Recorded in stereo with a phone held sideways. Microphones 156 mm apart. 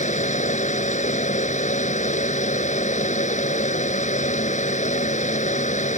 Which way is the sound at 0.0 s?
50° left (ahead or behind).